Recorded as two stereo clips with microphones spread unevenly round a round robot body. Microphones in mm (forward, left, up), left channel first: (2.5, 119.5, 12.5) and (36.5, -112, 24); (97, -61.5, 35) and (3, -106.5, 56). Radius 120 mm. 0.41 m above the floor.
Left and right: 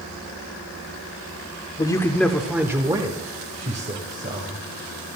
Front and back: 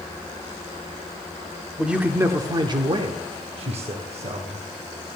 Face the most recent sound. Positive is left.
turn(degrees=-135)